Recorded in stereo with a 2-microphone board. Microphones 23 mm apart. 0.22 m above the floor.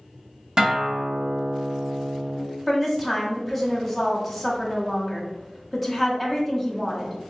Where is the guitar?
35° right (ahead or behind), 0.9 m.